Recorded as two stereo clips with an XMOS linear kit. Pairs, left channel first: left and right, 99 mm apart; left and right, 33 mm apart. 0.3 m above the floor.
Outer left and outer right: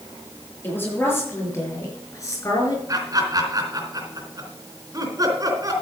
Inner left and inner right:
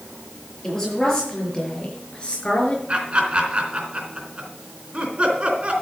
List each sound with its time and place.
0.6 s a woman speaking: 20° left (ahead or behind), 6.5 m; by 2.8 s 40° left (ahead or behind), 5 m
2.9 s laughter: 40° right (ahead or behind), 3.5 m